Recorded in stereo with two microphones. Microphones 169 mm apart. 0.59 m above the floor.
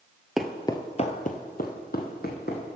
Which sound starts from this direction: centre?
Footsteps, at 0.4 s.